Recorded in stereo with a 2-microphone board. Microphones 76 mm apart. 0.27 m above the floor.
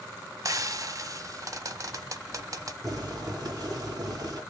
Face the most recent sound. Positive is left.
turn(degrees=-45)  # may be behind; listen again after turning